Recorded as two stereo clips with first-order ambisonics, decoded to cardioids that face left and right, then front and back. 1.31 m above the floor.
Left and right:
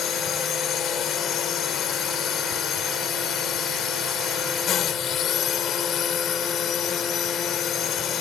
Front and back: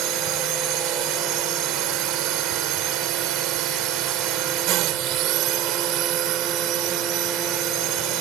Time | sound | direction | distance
0.0 | a drone | 145° left | ?